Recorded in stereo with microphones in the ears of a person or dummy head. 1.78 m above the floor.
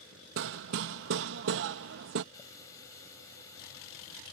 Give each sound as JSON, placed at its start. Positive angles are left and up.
{"t": 0.4, "sound": "hammering", "side_deg": -65}
{"t": 2.3, "sound": "a running tap", "side_deg": 15}